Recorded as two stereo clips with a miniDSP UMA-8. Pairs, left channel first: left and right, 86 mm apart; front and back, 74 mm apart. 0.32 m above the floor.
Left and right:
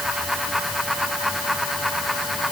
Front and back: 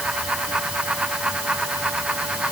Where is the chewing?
No chewing in this recording.